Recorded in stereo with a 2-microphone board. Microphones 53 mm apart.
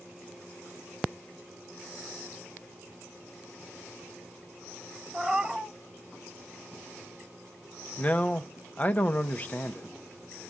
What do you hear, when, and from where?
5.1 s a cat meowing: 10° right (ahead or behind), 0.8 m
8.0 s a man speaking: 25° left (ahead or behind), 0.7 m